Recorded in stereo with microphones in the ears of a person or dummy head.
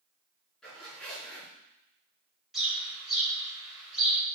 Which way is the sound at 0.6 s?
Centre (ahead or behind).